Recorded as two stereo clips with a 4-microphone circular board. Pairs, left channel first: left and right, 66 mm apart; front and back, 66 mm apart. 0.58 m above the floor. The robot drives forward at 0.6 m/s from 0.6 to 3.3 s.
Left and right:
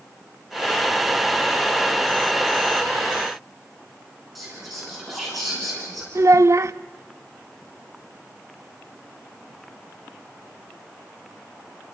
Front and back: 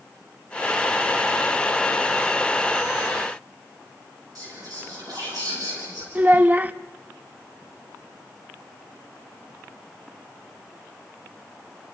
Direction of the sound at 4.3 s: Straight behind.